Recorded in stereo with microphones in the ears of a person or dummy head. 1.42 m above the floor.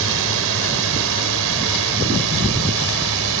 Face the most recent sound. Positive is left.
turn(degrees=-80)